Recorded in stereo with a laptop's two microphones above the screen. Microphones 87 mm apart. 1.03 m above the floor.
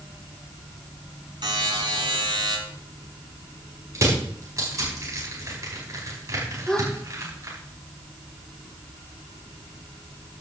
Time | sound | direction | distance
1.4 | a buzzer | 60° right (ahead or behind) | 4 m
4.0 | crushing | 40° right (ahead or behind) | 5.5 m
6.7 | a gasp | 10° left (ahead or behind) | 1.2 m